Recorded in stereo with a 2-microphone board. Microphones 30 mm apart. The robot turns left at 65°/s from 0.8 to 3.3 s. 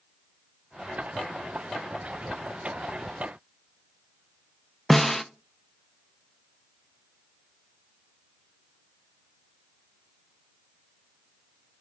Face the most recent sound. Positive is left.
turn(degrees=10)  # may be behind; listen again after turning